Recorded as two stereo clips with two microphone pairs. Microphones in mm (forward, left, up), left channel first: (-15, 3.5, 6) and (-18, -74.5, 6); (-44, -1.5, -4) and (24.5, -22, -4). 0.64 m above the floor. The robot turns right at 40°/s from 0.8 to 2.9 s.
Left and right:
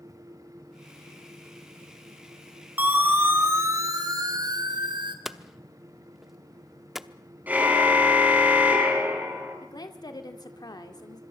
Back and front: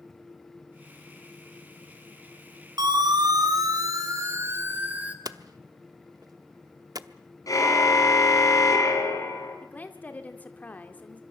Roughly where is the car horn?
Behind.